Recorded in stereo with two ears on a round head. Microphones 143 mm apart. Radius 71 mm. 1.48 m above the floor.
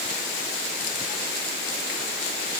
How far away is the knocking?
I don't hear knocking.